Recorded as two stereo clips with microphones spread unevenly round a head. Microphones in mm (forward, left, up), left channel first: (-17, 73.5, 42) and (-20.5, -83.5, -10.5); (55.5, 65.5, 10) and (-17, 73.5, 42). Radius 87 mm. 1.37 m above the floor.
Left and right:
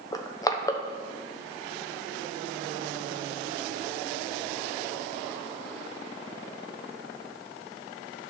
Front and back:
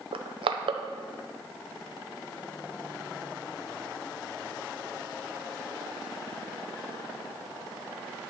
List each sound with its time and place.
0.1 s crushing: 165° left, 0.9 m